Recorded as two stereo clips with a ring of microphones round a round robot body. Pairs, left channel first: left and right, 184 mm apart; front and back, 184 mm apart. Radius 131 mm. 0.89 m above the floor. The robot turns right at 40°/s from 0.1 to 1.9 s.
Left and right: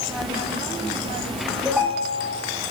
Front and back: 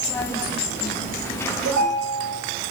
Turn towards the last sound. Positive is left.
turn(degrees=-160)